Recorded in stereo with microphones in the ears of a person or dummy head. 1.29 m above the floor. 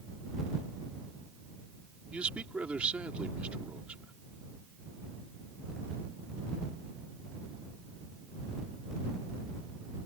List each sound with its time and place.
2.1 s a man speaking: 5° right (ahead or behind)